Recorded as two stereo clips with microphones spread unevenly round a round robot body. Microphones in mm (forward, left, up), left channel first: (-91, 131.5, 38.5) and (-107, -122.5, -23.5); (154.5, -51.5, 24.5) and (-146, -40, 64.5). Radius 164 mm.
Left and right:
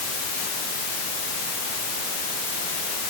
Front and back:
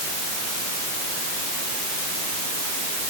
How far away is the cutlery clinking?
I don't hear cutlery clinking.